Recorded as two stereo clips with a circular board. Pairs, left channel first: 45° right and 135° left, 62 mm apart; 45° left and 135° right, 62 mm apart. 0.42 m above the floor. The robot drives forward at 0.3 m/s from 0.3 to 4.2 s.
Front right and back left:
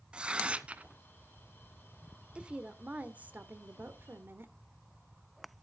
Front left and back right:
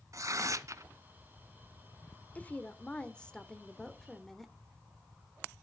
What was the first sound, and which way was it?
Tearing paper, 155° right.